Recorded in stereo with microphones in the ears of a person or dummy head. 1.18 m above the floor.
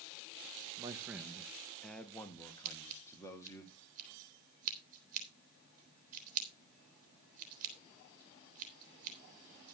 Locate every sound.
0.8 s a man speaking: 15° right (ahead or behind), 1.0 m; by 3.6 s 20° left (ahead or behind), 2.5 m
2.6 s scissors: 40° right (ahead or behind), 3 m